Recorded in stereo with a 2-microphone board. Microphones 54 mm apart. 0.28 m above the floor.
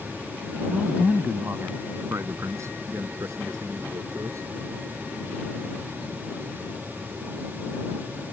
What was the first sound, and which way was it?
A man speaking, 10° right (ahead or behind).